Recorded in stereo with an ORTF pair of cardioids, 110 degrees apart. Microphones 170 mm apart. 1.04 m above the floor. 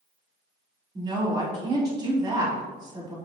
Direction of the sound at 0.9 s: 25° right.